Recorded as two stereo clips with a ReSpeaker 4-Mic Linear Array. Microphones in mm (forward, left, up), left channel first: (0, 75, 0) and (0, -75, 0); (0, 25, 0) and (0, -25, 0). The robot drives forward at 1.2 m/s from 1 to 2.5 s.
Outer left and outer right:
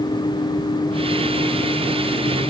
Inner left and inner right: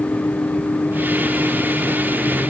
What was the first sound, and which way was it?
Only background noise.